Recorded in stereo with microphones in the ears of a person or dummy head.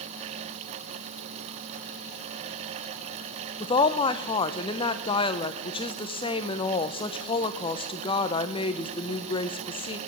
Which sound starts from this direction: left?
A woman speaking, at 3.6 s.